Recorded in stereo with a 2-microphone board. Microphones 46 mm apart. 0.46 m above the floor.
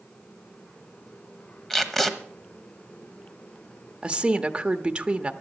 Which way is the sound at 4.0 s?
25° right (ahead or behind).